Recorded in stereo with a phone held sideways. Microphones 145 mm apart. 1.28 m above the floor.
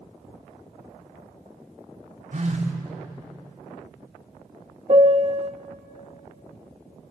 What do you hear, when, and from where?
2.3 s a phone buzzing: 60° right (ahead or behind), 2.5 m
4.9 s a piano: 40° right (ahead or behind), 0.8 m